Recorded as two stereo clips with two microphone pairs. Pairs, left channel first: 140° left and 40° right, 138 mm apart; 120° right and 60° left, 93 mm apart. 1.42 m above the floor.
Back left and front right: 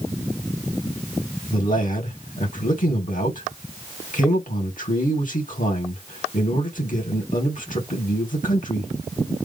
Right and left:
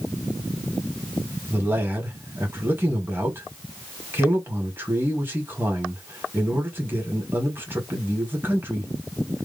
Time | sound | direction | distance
1.5 | a man speaking | 125° left | 1.9 m